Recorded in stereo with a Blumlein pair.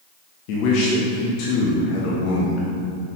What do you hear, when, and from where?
0.5 s a man speaking: 45° left, 1.3 m